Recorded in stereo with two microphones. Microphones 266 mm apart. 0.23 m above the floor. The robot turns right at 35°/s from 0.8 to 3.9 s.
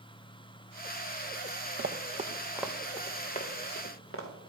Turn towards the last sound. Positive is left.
turn(degrees=55)  # may be behind; listen again after turning